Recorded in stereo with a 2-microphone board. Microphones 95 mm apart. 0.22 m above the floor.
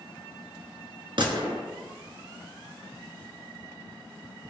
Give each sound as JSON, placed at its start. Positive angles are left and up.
{"t": 1.2, "sound": "a gunshot", "side_deg": -55, "distance_m": 1.0}